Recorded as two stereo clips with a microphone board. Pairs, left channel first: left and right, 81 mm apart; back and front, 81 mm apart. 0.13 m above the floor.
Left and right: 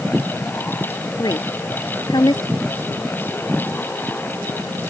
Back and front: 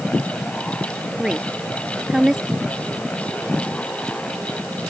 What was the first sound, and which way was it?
A woman speaking, 85° left.